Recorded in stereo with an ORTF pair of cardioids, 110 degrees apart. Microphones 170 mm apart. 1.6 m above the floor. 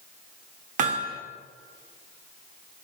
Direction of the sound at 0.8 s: 50° right.